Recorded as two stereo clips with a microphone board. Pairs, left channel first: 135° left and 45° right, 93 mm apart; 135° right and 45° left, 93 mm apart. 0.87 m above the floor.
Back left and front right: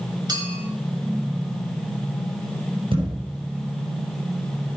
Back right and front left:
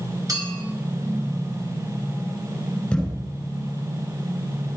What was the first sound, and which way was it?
A clink, 5° right.